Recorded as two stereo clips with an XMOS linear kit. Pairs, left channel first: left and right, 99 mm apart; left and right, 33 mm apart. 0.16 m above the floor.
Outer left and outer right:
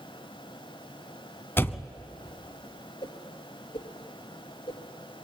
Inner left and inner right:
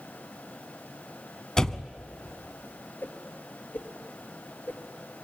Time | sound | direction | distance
1.6 | a door slam | 25° left (ahead or behind) | 0.8 m
3.0 | a whoosh | 65° left (ahead or behind) | 3.5 m